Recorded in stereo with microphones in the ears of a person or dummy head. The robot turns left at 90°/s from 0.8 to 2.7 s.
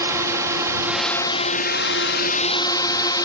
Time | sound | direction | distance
0.0 | a drone | 165° right | ?